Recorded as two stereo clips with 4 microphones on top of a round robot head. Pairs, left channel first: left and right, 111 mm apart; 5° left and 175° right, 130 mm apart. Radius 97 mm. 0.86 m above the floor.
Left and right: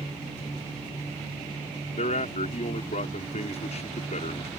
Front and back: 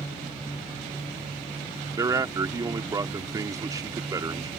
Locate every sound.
1.9 s a man speaking: 120° left